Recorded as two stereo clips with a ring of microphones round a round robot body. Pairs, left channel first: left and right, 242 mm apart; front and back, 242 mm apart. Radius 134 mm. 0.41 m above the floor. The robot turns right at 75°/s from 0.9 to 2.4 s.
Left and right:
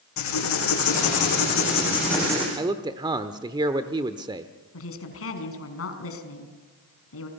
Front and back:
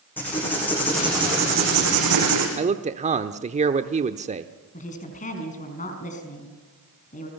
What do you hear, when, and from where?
0.2 s writing: 85° left, 8.5 m; by 2.5 s 165° right, 8.5 m
2.6 s a man speaking: 150° right, 0.9 m
4.7 s a woman speaking: 65° left, 5 m